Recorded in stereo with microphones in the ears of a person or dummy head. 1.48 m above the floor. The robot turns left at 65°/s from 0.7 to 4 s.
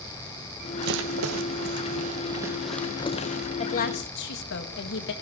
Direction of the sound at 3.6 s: 35° left (ahead or behind).